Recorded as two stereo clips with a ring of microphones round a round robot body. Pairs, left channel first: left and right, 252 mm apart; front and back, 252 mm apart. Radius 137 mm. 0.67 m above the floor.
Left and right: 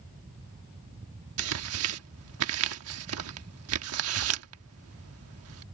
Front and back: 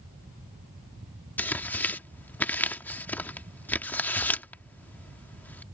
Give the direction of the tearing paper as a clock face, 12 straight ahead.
3 o'clock.